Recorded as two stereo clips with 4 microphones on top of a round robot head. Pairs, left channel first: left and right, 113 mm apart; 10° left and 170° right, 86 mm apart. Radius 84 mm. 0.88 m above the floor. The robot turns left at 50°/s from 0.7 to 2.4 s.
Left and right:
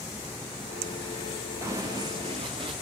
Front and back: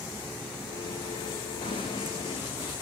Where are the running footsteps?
25° right, 3.5 m; by 2.7 s 45° right, 4 m.